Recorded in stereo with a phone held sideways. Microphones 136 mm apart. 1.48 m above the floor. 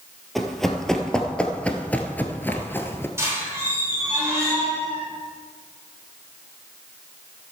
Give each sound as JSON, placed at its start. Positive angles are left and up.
{"t": 0.3, "sound": "running footsteps", "side_deg": 0, "distance_m": 1.8}
{"t": 3.2, "sound": "a squeak", "side_deg": -20, "distance_m": 4.5}